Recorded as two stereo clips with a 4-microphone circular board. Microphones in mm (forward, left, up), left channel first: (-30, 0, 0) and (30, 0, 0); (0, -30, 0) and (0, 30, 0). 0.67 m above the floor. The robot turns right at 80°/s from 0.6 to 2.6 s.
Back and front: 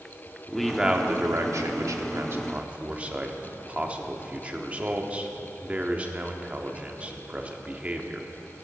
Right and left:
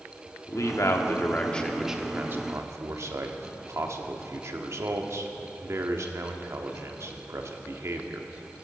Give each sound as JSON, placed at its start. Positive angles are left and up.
{"t": 0.5, "sound": "a man speaking", "azimuth_deg": -95, "distance_m": 1.1}